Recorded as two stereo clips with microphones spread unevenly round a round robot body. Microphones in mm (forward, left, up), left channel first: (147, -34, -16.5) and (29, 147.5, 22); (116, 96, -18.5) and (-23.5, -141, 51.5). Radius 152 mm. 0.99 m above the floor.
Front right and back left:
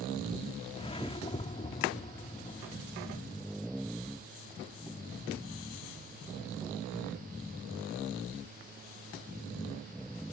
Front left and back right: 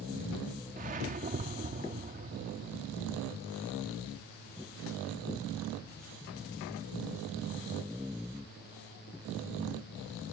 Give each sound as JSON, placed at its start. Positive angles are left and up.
{"t": 0.8, "sound": "a whoosh", "azimuth_deg": -130}